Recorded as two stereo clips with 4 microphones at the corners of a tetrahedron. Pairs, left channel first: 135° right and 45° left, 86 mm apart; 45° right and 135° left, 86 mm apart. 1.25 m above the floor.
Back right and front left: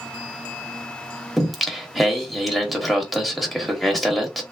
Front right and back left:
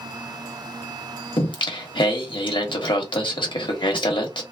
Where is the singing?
45° right, 0.9 m.